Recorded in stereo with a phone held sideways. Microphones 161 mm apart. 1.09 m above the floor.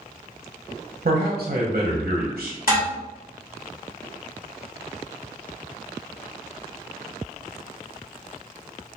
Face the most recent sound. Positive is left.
turn(degrees=70)  # may be behind; listen again after turning